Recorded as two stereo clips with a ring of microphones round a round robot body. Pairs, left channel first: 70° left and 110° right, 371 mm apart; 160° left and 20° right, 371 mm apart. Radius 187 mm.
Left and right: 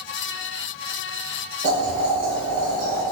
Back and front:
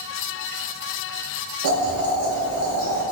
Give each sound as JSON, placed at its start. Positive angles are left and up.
{"t": 1.6, "sound": "boiling", "azimuth_deg": -50, "distance_m": 0.8}